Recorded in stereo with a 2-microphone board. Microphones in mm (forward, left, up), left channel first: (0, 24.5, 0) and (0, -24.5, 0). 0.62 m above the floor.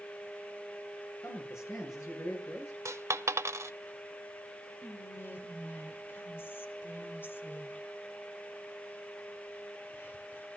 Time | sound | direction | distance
1.2 | a man speaking | 75° left (ahead or behind) | 9 m
2.9 | a dropped coin | 75° right (ahead or behind) | 0.7 m
4.8 | whispering | 45° left (ahead or behind) | 2.5 m